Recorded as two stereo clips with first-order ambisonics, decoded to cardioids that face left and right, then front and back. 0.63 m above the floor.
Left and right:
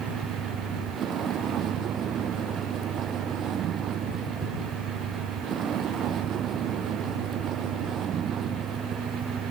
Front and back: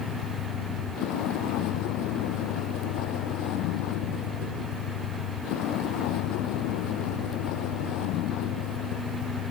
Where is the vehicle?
30° right.